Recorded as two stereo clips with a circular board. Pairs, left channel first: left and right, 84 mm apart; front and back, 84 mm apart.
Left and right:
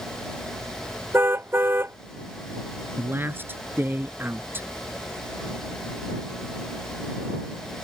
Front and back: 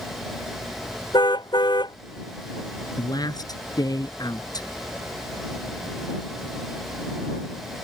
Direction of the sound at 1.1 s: 30° right.